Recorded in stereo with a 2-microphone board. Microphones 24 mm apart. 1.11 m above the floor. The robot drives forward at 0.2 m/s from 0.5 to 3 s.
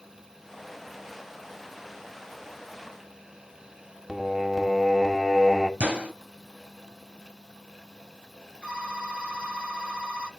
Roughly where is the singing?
Centre.